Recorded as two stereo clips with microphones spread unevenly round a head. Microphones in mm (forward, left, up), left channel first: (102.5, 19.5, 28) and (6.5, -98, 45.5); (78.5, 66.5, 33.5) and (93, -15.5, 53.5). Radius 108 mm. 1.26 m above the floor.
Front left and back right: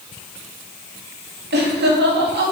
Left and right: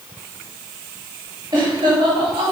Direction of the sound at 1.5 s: 145° right.